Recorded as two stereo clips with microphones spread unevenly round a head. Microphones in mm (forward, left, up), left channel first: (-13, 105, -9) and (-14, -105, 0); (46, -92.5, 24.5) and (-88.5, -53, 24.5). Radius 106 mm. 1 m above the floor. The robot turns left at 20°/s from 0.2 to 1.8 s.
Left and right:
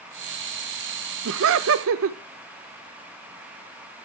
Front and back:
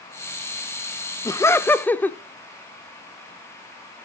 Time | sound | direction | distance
1.2 | laughter | 85° right | 0.5 m